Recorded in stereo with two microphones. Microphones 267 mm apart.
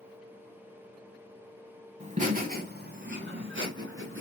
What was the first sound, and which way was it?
Laughter, 25° right (ahead or behind).